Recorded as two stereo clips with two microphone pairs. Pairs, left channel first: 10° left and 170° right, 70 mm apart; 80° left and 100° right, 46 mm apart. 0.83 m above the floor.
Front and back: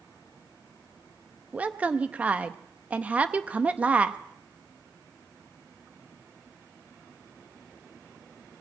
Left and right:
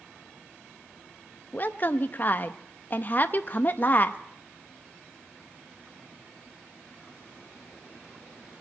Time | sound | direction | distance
1.5 | a woman speaking | 125° left | 0.6 m